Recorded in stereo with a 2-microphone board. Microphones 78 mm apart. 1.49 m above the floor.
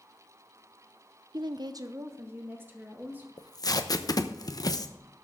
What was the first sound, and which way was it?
A woman speaking, 60° right (ahead or behind).